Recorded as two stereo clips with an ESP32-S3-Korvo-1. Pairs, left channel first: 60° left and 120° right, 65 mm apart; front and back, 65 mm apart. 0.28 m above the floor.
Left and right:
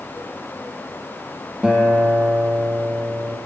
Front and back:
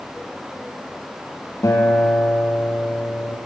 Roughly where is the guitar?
Ahead right.